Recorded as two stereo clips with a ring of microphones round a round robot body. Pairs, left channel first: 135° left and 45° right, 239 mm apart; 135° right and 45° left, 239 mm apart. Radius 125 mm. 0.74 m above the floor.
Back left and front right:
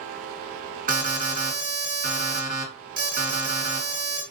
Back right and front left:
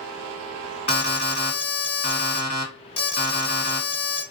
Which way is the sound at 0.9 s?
85° right.